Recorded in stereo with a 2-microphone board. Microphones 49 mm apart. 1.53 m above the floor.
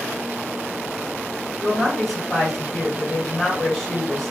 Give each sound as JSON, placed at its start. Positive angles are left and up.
{"t": 1.6, "sound": "a woman speaking", "side_deg": 5, "distance_m": 1.5}